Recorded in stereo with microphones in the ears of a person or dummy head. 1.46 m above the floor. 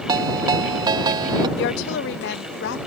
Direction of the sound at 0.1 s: 25° right (ahead or behind).